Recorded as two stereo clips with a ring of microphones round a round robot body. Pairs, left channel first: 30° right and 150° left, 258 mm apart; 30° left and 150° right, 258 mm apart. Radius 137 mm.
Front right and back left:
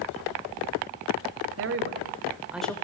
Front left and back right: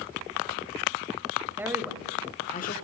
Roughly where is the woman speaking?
Behind left.